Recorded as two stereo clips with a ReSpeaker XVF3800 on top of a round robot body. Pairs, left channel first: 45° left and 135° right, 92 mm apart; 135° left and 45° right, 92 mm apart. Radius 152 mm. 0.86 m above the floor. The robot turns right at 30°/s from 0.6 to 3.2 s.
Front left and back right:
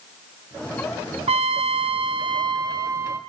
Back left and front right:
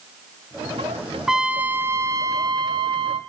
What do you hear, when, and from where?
1.3 s a trumpet: 130° right, 0.6 m; by 3.2 s 70° right, 0.6 m